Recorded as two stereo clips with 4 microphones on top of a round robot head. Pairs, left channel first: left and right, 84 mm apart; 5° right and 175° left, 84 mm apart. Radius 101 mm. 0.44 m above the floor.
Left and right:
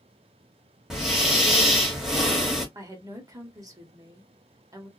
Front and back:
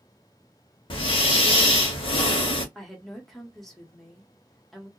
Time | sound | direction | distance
0.9 | breathing | 5° right | 1.0 m
2.8 | a woman speaking | 90° right | 1.4 m